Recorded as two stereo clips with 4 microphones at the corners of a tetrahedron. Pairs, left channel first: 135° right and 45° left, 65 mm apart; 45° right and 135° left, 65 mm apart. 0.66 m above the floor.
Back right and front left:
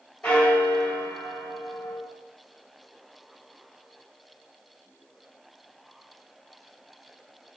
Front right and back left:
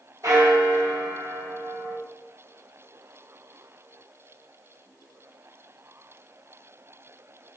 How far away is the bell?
About 1.3 m.